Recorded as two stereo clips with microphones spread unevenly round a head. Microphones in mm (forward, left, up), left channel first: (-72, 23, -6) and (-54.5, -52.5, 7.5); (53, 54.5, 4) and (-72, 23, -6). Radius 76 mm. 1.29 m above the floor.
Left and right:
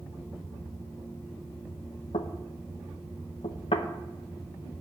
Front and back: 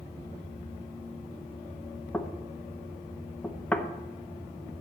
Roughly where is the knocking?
Left.